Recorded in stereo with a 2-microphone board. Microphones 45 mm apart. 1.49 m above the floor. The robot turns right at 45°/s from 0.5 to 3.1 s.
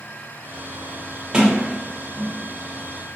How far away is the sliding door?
About 1.2 m.